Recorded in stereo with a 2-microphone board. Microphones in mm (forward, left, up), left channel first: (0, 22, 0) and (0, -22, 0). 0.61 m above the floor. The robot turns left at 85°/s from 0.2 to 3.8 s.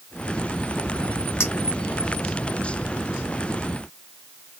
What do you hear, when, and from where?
1.4 s a clink: 80° left, 1.5 m; by 1.5 s 70° left (ahead or behind), 1.5 m